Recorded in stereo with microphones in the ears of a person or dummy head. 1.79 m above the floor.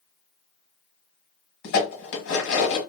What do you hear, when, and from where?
1.6 s dishes clattering: 60° left (ahead or behind), 1.5 m